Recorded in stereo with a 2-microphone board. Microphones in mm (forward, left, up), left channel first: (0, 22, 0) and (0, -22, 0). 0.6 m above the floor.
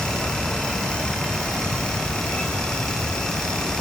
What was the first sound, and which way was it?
Only background noise.